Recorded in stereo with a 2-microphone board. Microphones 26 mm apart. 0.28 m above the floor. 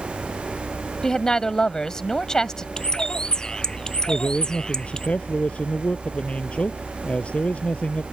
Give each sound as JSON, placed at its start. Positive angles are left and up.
{"t": 1.0, "sound": "a woman speaking", "side_deg": 25}
{"t": 2.8, "sound": "a bird", "side_deg": 30}
{"t": 4.1, "sound": "a man speaking", "side_deg": 50}